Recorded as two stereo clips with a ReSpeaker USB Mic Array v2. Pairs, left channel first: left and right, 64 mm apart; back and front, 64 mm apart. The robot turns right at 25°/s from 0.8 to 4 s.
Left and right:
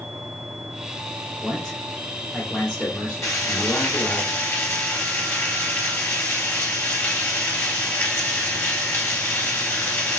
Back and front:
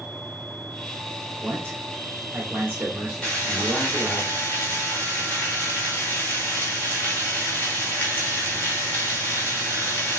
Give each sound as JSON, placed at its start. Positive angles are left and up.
{"t": 1.4, "sound": "a man speaking", "azimuth_deg": 0, "distance_m": 1.0}
{"t": 3.2, "sound": "frying", "azimuth_deg": 105, "distance_m": 1.7}